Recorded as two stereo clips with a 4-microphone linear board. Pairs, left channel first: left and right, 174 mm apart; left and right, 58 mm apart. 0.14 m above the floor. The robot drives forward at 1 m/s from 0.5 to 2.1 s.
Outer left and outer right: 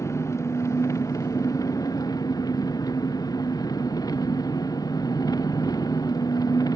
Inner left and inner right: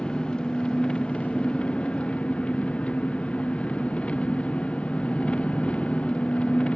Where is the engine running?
15° left (ahead or behind); by 6.8 s 20° left (ahead or behind).